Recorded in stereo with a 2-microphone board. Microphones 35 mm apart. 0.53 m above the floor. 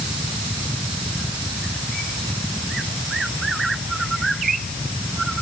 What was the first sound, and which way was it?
Only background noise.